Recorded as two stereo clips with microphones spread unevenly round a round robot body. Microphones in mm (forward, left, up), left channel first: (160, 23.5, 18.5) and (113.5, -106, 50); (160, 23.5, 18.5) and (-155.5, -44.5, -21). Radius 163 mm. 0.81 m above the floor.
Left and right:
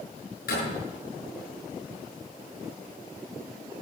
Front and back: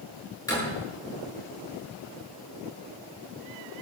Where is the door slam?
90° left, 8 m.